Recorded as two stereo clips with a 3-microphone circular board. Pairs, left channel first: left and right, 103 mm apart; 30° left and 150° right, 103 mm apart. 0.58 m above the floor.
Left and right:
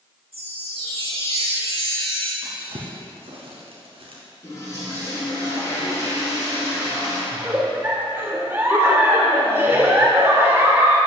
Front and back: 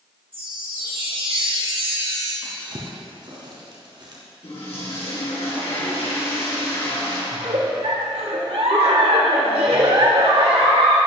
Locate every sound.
0.3 s a chime: 115° right, 3 m
2.4 s a drawer: 110° right, 2 m
4.4 s a toilet flushing: 35° left, 3.5 m
7.3 s a giggle: 160° right, 1.2 m